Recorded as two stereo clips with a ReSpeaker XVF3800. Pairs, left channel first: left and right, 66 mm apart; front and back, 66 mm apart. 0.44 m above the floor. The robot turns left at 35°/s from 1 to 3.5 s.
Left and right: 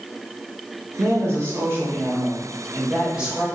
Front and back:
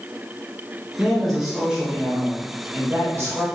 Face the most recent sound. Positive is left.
turn(degrees=-165)